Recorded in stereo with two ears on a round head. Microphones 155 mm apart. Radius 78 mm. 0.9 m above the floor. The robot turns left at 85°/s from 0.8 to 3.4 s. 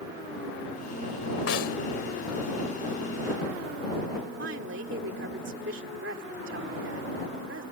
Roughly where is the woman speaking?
Right.